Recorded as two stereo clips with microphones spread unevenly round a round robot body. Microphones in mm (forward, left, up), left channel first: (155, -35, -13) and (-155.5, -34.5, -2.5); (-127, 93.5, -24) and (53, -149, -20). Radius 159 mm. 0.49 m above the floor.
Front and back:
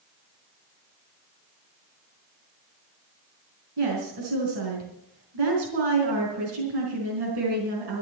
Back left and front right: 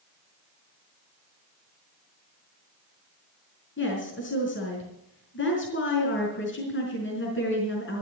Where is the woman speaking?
Straight behind, 4.5 m.